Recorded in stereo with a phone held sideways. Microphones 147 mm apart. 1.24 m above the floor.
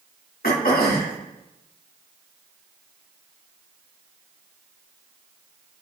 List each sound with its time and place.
0.4 s throat clearing: 80° left, 2.0 m